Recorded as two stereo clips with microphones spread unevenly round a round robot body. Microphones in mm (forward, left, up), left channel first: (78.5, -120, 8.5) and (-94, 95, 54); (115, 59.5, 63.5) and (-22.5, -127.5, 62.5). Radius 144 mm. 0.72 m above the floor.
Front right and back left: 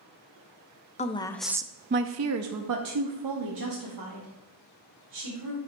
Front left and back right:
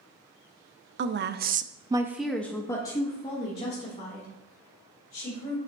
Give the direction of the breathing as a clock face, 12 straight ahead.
I don't hear breathing.